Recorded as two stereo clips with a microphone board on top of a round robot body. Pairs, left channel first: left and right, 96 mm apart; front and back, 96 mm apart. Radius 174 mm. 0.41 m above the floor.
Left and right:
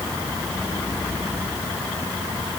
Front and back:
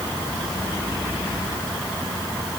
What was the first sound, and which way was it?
Only background noise.